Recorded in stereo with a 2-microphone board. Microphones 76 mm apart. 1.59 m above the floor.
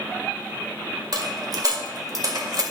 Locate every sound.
1.1 s a dropped coin: 55° right (ahead or behind), 1.9 m